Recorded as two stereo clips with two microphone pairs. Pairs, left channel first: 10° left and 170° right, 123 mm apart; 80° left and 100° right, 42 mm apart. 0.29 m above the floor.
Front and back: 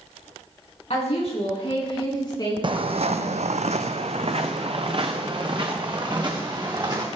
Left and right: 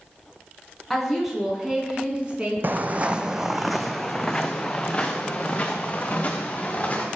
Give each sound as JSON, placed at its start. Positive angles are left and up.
{"t": 0.9, "sound": "a woman speaking", "azimuth_deg": -10, "distance_m": 2.5}
{"t": 2.6, "sound": "footsteps", "azimuth_deg": -130, "distance_m": 0.6}